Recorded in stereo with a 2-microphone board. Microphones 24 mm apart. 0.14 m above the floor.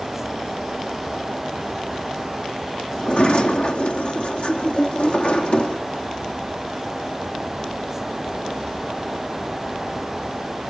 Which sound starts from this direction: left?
A sliding door, at 3.0 s.